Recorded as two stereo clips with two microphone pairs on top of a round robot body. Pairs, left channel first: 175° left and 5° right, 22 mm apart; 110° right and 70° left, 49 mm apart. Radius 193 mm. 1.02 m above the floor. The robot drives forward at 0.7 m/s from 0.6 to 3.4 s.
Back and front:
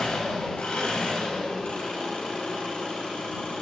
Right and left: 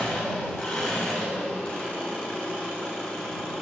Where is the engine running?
170° left, 5.5 m; by 3.6 s 175° left, 7.5 m.